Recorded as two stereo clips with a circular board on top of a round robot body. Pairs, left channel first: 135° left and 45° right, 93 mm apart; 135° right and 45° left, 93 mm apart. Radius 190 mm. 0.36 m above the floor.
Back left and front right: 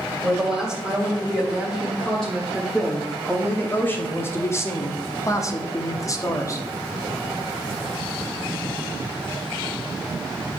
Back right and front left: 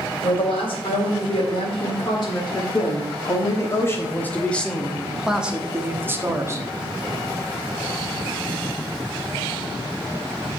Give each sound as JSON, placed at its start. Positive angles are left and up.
{"t": 0.2, "sound": "a woman speaking", "azimuth_deg": -135, "distance_m": 3.0}